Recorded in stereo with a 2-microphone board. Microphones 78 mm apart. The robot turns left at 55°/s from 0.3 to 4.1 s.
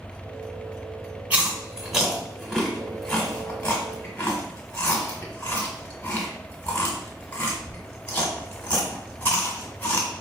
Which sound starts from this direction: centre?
Chewing, at 1.3 s.